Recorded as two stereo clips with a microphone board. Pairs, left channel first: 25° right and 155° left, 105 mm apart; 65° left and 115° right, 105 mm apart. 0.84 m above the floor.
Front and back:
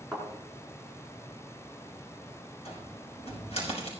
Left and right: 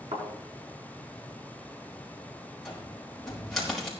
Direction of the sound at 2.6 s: 20° right.